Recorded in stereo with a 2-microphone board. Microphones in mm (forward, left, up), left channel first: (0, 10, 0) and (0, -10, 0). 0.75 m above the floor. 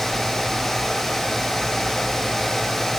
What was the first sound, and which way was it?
Only background noise.